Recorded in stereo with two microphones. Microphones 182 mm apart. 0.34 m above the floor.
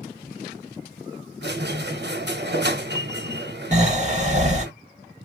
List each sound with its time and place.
1.4 s a squeak: 70° right (ahead or behind), 0.7 m
3.7 s snoring: 40° right (ahead or behind), 0.8 m